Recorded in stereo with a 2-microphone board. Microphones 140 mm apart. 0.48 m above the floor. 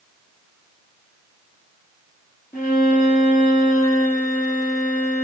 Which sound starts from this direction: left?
A violin, at 2.5 s.